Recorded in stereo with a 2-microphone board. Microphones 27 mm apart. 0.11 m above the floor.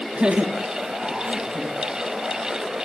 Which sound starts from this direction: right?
Laughter, at 0.1 s.